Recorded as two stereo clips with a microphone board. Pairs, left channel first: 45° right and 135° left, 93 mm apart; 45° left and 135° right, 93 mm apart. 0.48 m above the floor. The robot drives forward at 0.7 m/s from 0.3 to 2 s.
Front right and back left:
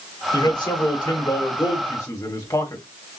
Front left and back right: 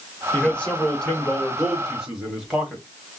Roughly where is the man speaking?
Ahead right.